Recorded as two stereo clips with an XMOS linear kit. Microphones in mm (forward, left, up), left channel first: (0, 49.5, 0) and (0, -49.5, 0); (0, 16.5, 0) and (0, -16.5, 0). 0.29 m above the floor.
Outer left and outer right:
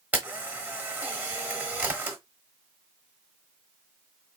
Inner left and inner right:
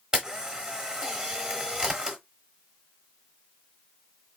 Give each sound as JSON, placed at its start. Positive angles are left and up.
{"t": 0.1, "sound": "a camera shutter", "side_deg": -15, "distance_m": 1.1}